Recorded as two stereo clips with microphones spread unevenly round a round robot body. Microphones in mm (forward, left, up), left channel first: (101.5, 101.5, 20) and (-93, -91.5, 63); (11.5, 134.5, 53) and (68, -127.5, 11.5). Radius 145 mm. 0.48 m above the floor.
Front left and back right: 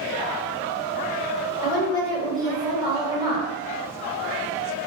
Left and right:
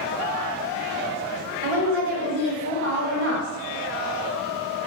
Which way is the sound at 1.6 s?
55° right.